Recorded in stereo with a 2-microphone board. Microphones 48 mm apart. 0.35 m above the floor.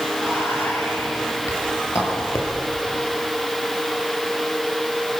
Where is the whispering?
80° left, 7 m.